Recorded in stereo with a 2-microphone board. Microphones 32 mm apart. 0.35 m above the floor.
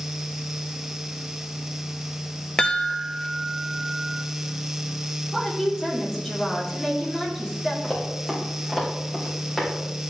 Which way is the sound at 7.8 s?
15° left (ahead or behind).